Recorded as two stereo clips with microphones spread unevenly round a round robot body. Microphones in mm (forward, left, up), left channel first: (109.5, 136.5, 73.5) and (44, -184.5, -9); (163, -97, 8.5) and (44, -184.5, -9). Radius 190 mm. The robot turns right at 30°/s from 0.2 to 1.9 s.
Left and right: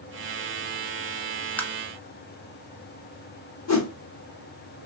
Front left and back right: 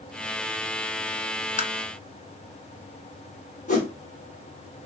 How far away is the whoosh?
About 1.3 m.